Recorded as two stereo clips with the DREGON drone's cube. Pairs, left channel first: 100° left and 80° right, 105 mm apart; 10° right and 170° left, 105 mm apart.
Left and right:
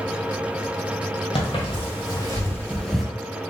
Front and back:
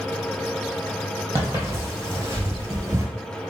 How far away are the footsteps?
About 1.9 m.